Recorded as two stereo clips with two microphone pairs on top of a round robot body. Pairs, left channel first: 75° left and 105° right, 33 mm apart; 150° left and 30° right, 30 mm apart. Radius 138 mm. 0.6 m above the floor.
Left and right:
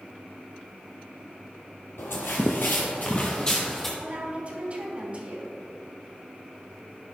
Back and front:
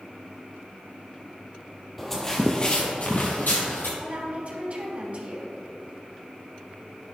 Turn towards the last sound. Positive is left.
turn(degrees=-60)